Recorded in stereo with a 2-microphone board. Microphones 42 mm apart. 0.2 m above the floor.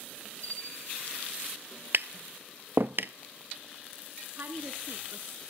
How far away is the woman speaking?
About 2.0 m.